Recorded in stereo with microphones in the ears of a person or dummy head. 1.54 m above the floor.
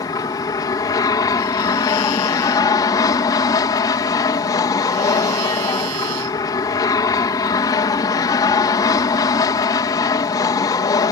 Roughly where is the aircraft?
Centre.